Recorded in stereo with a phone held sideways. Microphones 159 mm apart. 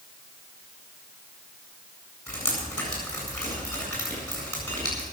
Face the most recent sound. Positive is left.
turn(degrees=10)  # may be behind; listen again after turning